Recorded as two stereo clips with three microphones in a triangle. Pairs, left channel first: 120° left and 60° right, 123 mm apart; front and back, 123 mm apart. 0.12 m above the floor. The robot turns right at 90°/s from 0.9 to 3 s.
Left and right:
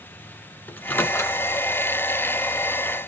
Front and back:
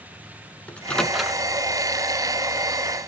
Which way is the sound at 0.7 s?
65° left.